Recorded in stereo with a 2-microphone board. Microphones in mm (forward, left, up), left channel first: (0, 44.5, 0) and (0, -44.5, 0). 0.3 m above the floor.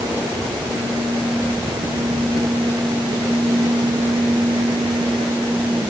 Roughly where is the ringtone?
I don't hear a ringtone.